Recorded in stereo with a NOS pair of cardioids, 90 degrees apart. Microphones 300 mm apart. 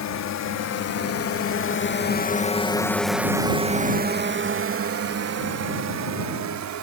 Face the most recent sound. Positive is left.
turn(degrees=-70)